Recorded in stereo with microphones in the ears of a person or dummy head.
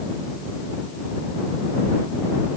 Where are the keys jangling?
No keys jangling in this recording.